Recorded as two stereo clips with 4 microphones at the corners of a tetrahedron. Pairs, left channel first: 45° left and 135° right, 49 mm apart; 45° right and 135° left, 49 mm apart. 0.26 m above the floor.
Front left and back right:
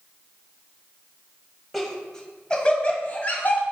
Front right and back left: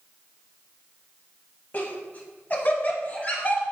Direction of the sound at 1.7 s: 40° right.